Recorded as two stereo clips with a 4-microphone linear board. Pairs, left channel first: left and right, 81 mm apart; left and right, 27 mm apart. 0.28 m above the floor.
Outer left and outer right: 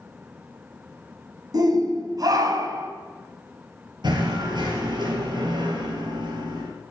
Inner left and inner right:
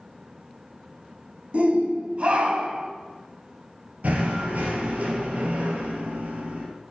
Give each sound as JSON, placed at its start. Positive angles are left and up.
{"t": 1.5, "sound": "a shout", "side_deg": -50, "distance_m": 2.5}
{"t": 4.0, "sound": "knocking", "side_deg": -65, "distance_m": 4.0}